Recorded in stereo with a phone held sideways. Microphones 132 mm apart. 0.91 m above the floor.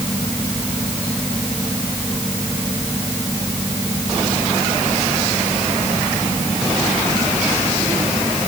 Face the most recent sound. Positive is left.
turn(degrees=25)  # may be behind; listen again after turning